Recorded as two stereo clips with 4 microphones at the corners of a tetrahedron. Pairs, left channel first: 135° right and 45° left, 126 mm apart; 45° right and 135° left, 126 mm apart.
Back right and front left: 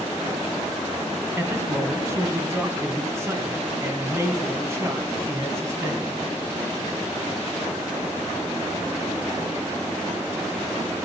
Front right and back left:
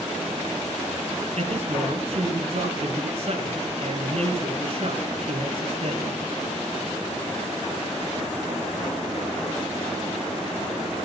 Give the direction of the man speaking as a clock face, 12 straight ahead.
8 o'clock.